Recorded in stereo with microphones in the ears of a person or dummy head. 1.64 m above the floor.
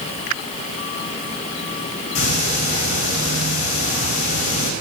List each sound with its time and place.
2.1 s ticking: 40° left (ahead or behind), 4.5 m